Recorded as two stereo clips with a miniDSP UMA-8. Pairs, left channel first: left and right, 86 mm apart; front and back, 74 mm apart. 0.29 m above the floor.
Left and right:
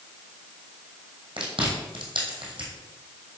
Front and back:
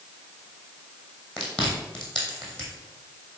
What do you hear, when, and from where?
1.4 s chewing: 85° right, 2.5 m